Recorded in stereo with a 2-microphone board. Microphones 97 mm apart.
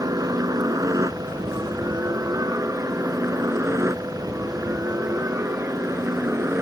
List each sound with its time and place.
0.0 s a helicopter: 35° right (ahead or behind); by 6.6 s 25° right (ahead or behind)